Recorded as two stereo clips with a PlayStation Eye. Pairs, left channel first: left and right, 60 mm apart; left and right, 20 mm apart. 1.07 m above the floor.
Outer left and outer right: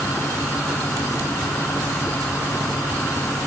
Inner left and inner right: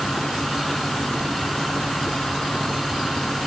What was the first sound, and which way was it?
Only background noise.